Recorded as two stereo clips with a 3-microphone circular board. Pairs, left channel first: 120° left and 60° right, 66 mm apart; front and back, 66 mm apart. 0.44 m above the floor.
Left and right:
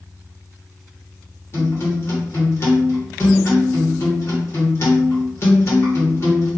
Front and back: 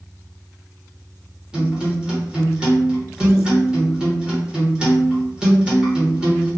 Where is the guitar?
110° left, 1.1 m.